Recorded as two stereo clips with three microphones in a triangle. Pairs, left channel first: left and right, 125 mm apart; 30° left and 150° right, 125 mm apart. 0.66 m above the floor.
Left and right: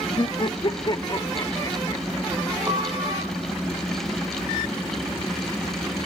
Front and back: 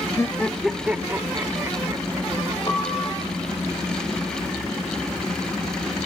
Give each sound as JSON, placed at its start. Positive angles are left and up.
{"t": 0.2, "sound": "laughter", "azimuth_deg": 80, "distance_m": 0.6}
{"t": 2.7, "sound": "a piano", "azimuth_deg": -25, "distance_m": 3.0}